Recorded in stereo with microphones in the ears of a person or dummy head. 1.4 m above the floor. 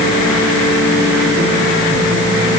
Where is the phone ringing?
No phone ringing in this recording.